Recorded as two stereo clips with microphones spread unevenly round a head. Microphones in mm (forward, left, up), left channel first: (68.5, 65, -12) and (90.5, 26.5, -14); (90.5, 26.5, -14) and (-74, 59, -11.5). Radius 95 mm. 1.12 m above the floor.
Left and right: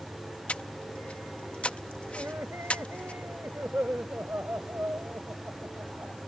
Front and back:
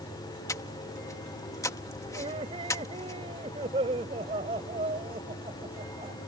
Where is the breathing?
60° left.